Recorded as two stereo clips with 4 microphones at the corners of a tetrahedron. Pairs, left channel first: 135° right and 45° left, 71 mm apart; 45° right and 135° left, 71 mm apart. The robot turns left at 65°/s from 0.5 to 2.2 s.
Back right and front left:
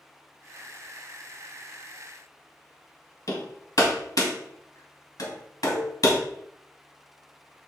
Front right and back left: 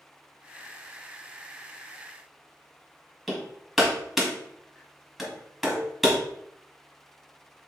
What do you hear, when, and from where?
3.3 s hammering: 135° right, 2 m
5.7 s a cowbell: 110° right, 3.5 m